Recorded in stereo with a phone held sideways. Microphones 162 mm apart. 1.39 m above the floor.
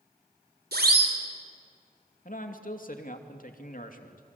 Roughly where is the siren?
Right.